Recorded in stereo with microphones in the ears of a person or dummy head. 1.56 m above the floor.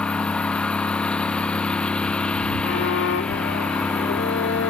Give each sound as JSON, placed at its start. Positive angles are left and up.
{"t": 0.0, "sound": "a lawn mower", "side_deg": 5}
{"t": 2.6, "sound": "a violin", "side_deg": 80}